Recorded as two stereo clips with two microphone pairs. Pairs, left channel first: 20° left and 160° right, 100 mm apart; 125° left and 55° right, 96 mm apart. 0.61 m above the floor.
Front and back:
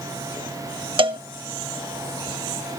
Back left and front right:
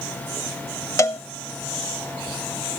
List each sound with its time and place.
1.0 s a cowbell: straight behind, 0.6 m